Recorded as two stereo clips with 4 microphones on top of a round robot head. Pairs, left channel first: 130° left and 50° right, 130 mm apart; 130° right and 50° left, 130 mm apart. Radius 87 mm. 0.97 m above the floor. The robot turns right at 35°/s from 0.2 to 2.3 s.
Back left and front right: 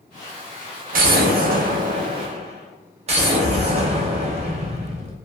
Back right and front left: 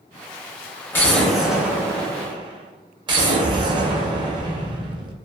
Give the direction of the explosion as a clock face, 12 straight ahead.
2 o'clock.